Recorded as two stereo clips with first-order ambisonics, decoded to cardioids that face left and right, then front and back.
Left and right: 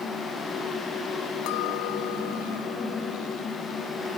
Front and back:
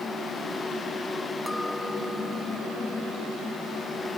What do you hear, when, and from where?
1.5 s a clink: 85° left